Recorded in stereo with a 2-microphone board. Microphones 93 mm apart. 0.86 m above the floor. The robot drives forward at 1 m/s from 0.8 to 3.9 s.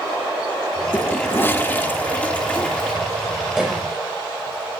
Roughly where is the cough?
Centre.